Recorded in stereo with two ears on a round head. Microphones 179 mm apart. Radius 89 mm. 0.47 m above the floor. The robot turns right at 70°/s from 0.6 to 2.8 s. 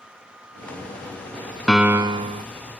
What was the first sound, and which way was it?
A piano, straight behind.